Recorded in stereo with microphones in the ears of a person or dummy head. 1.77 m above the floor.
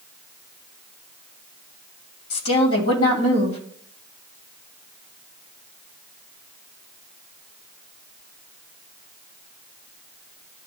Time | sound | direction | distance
2.3 | a woman speaking | 85° left | 3 m